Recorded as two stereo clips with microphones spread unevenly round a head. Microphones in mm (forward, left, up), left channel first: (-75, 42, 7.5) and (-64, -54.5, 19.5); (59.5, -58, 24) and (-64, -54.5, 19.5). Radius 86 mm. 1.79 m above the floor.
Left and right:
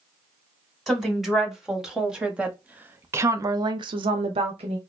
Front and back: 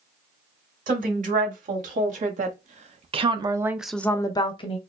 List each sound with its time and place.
0.9 s a woman speaking: 170° right, 2 m; by 4.8 s 40° right, 0.9 m